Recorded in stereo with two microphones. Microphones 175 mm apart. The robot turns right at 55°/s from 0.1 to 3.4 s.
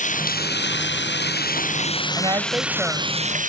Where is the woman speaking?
40° right; by 3.2 s 15° left.